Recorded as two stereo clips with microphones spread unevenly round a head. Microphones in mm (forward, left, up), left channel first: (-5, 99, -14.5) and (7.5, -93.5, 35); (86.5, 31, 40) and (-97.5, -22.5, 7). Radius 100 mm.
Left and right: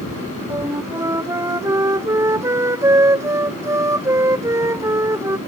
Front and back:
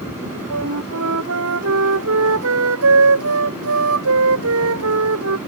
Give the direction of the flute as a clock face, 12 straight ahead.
5 o'clock.